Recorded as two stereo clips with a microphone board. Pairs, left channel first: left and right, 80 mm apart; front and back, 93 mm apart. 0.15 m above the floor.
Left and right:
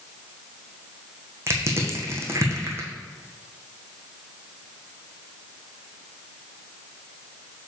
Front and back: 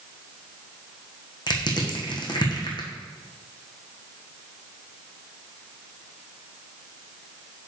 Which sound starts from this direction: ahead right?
Crushing, at 1.5 s.